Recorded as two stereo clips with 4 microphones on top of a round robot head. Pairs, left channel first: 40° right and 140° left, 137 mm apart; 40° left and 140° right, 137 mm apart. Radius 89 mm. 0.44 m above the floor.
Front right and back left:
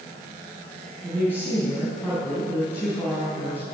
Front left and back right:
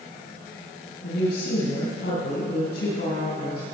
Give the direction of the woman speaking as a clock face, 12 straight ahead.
11 o'clock.